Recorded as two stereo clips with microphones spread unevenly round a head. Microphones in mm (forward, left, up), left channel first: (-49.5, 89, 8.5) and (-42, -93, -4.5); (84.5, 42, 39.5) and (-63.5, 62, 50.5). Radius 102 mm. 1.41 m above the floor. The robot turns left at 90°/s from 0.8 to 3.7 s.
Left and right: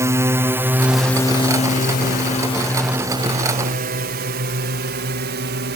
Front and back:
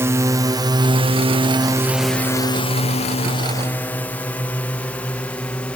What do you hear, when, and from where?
0.0 s a drone: 125° right; by 5.8 s 85° right